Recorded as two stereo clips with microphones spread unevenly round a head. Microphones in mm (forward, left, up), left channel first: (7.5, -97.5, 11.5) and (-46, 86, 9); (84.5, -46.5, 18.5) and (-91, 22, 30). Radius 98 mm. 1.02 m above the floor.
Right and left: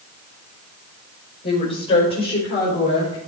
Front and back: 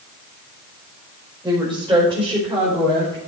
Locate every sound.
1.4 s a woman speaking: 135° right, 5 m